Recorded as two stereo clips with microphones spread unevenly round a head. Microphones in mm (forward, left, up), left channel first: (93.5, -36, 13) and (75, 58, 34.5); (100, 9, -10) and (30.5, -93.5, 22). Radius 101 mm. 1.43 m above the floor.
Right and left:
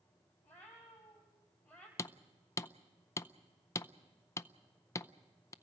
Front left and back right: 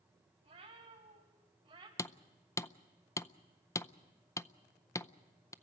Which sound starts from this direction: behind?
A cat meowing, at 0.4 s.